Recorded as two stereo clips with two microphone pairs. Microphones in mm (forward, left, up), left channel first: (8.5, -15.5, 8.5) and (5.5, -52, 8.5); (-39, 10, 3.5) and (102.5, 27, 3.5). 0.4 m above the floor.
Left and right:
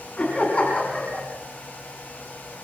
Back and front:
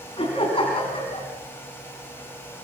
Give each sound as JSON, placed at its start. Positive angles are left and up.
{"t": 0.2, "sound": "laughter", "azimuth_deg": 140, "distance_m": 5.0}